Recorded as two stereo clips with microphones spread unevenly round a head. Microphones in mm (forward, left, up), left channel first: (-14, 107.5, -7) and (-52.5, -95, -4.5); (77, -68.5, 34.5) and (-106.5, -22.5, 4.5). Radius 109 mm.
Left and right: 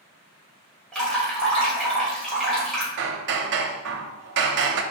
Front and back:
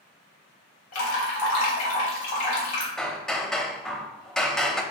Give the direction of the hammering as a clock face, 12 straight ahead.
3 o'clock.